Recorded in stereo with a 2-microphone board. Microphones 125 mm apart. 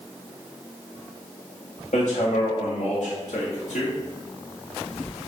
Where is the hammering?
80° left, 2 m.